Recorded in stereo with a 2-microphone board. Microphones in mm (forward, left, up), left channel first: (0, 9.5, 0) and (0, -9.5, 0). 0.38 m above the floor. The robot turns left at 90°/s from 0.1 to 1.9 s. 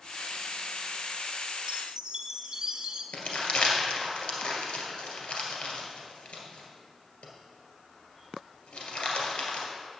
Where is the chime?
60° right (ahead or behind), 0.7 m; by 3.0 s 45° right (ahead or behind), 0.7 m.